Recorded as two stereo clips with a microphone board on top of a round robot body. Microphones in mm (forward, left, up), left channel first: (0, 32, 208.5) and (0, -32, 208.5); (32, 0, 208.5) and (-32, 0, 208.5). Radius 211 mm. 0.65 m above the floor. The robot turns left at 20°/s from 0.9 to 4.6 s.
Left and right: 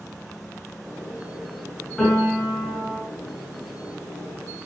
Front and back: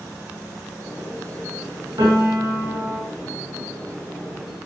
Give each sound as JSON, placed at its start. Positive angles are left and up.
{"t": 2.0, "sound": "a piano", "azimuth_deg": 170, "distance_m": 7.0}